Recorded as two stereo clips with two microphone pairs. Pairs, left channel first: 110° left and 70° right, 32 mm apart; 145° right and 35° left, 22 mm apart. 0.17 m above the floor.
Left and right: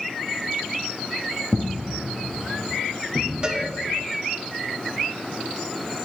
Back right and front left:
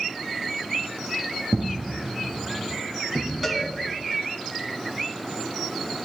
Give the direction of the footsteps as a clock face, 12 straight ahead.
10 o'clock.